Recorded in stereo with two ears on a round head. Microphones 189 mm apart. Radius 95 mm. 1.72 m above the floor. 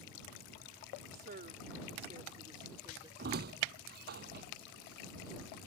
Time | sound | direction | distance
1.1 | a woman speaking | 45° right (ahead or behind) | ?
3.2 | a squeak | 50° right (ahead or behind) | ?